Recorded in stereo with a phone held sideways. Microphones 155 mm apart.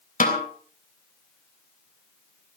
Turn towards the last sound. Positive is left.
turn(degrees=55)  # may be behind; listen again after turning